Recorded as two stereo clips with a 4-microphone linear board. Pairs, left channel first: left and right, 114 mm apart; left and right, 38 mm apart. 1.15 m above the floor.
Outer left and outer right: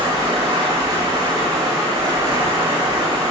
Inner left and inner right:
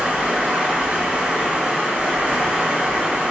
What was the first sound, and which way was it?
Running water, 35° right (ahead or behind).